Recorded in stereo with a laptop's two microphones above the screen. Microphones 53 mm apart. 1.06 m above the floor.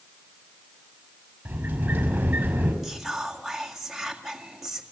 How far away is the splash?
I don't hear a splash.